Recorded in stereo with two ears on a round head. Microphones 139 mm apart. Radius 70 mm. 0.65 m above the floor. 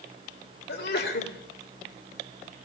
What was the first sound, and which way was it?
A sneeze, 70° left (ahead or behind).